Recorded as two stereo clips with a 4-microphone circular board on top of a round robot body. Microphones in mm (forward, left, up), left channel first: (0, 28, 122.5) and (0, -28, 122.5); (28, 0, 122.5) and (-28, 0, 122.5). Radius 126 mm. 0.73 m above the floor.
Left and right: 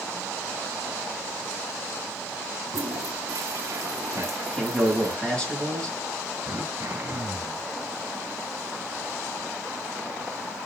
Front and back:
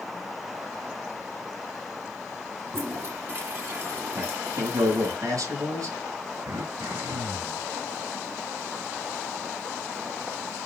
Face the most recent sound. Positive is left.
turn(degrees=-150)